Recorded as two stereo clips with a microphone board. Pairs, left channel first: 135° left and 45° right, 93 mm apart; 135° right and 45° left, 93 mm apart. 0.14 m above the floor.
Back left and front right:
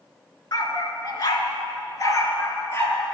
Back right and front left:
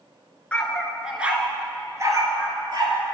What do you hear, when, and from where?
0.5 s a dog barking: 150° left, 0.8 m; by 3.1 s 75° left, 1.4 m